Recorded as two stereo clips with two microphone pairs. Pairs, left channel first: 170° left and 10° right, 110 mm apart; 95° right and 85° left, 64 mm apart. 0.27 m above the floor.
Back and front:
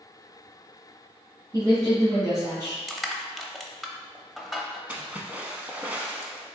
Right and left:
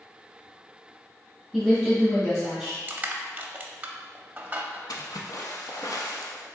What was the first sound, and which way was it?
A woman speaking, 10° right.